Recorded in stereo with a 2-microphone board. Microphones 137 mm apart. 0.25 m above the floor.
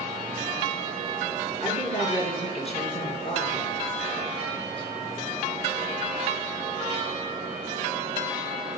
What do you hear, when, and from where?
1.6 s a woman speaking: 45° left (ahead or behind), 3.5 m